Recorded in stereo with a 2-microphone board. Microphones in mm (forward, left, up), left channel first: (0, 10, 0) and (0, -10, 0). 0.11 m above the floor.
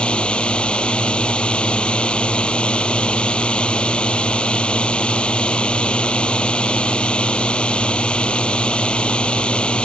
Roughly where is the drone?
Left.